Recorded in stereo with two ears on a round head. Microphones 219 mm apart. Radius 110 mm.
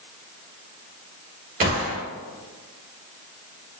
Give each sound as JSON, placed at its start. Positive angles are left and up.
{"t": 1.6, "sound": "a gunshot", "side_deg": -35, "distance_m": 1.1}